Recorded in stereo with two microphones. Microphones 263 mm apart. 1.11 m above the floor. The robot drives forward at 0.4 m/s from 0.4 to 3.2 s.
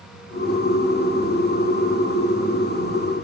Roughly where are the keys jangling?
I don't hear keys jangling.